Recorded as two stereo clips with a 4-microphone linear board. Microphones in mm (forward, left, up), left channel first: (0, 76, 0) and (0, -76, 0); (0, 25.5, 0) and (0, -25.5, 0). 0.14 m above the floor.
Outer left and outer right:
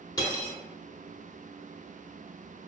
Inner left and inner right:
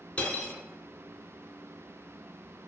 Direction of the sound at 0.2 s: 25° left (ahead or behind).